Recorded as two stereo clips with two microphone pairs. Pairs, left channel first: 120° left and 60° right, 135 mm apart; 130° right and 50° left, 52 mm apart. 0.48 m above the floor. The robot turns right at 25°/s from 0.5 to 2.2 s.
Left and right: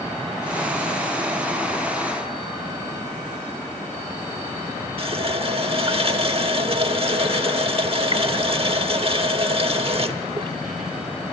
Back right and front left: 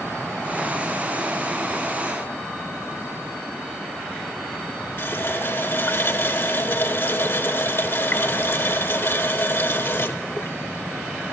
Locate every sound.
5.0 s a running tap: 100° right, 0.9 m